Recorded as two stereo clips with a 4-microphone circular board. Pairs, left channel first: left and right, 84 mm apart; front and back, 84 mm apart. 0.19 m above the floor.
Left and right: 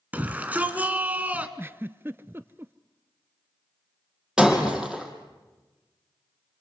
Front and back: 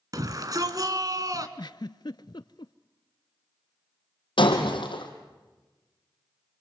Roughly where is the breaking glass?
Ahead.